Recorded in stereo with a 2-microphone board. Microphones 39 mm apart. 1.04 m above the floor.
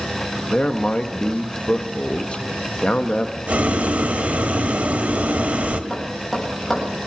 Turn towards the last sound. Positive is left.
turn(degrees=5)  # may be behind; listen again after turning